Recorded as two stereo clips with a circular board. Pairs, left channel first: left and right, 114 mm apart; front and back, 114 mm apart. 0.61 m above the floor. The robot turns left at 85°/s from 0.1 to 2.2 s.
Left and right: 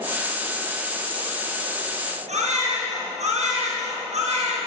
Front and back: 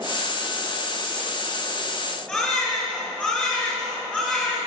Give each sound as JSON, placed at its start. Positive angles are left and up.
{"t": 2.3, "sound": "a baby crying", "azimuth_deg": -85, "distance_m": 6.0}